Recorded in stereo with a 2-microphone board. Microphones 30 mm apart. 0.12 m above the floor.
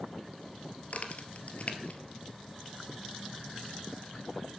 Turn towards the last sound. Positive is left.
turn(degrees=50)  # may be behind; listen again after turning